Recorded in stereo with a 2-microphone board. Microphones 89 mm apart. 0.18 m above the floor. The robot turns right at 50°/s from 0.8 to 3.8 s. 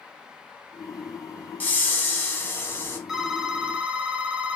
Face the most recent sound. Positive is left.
turn(degrees=-15)  # may be behind; listen again after turning